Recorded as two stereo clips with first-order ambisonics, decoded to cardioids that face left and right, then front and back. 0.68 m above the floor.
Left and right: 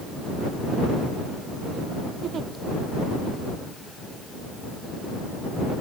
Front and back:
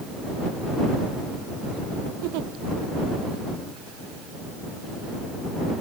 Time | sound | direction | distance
2.2 | a giggle | 155° right | ?